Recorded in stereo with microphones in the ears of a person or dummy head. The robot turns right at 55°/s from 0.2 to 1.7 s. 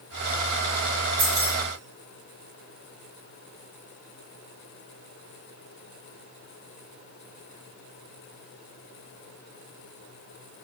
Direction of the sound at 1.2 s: 45° right (ahead or behind).